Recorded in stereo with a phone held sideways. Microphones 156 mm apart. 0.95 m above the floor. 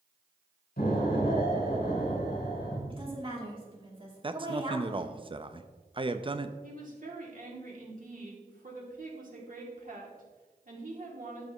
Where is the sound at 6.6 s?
60° right (ahead or behind), 2.5 m.